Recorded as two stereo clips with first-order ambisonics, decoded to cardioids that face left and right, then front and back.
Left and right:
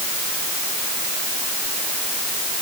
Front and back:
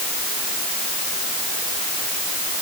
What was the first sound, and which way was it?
Only background noise.